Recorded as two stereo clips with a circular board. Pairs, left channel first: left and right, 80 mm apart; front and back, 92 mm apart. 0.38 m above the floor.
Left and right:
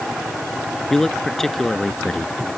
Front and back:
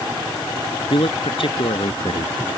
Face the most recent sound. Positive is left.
turn(degrees=5)